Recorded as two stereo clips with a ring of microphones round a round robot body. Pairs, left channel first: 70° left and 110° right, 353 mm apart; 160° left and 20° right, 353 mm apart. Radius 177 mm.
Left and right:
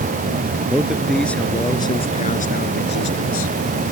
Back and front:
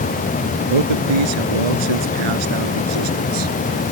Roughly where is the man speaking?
Ahead right.